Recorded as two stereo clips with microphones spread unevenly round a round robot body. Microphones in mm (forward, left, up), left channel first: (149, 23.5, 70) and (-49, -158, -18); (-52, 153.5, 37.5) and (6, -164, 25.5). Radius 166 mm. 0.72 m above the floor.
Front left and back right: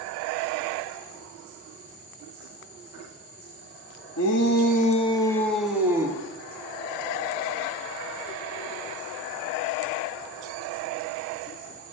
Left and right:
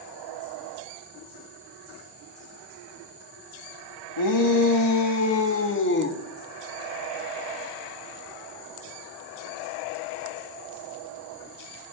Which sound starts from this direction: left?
A shout, at 4.2 s.